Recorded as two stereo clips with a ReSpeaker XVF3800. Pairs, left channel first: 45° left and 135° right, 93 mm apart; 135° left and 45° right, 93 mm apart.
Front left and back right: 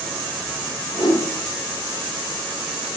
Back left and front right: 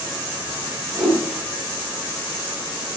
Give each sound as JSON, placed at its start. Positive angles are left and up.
{"t": 0.9, "sound": "a whoosh", "azimuth_deg": 50, "distance_m": 1.1}